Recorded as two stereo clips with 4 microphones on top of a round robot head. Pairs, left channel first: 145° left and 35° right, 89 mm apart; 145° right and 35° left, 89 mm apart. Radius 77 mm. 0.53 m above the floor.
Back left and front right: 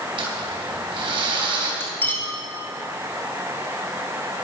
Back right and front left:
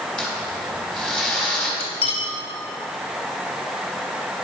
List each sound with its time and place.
0.2 s crumpling: 65° right, 4 m
1.8 s cutlery clinking: 150° right, 2.5 m